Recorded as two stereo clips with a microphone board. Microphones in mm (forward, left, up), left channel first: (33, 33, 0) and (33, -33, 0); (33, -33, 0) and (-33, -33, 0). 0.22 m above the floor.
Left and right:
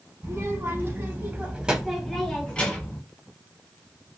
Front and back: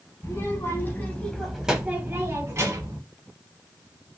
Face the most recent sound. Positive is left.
turn(degrees=155)